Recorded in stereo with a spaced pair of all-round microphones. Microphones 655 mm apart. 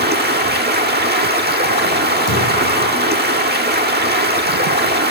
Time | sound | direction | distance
0.0 | running water | 15° right (ahead or behind) | 1.3 m
2.3 | a thud | 20° left (ahead or behind) | 8 m